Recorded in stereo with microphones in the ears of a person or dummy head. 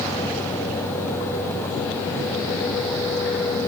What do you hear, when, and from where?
Only background noise.